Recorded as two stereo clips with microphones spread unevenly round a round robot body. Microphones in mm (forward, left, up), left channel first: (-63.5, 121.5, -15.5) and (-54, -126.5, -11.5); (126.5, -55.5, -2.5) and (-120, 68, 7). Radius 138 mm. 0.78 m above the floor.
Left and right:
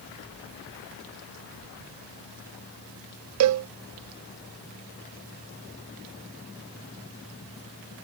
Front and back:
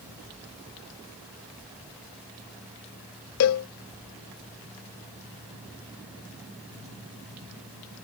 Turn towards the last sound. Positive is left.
turn(degrees=-60)